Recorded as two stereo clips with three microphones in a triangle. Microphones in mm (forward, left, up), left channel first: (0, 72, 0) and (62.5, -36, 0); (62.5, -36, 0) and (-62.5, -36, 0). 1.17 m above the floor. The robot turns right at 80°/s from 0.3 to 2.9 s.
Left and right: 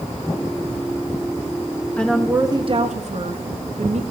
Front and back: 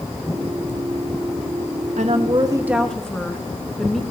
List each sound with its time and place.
2.0 s a woman speaking: 160° right, 1.3 m; by 4.0 s 85° right, 1.3 m